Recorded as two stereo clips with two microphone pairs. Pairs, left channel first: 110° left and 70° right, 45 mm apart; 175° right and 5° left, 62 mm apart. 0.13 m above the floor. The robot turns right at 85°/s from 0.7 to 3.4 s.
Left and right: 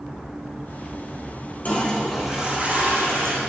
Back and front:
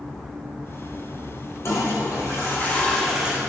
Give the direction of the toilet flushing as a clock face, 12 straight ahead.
7 o'clock.